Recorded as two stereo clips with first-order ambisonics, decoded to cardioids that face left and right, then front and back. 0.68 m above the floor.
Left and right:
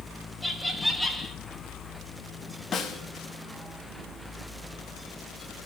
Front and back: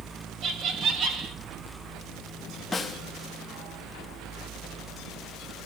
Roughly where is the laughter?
Behind.